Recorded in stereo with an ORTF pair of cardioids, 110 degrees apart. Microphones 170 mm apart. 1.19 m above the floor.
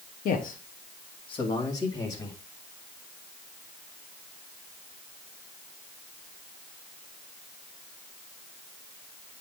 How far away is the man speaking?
About 1.4 m.